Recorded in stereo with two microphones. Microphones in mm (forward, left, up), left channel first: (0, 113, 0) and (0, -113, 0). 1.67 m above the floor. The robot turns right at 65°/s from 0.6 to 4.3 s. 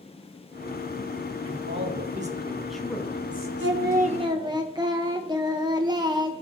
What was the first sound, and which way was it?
A man speaking, 85° right.